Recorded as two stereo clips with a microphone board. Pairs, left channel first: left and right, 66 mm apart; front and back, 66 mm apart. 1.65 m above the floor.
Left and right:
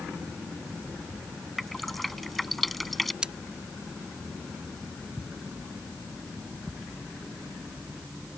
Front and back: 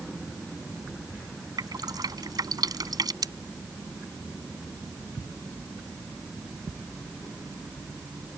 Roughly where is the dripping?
Behind.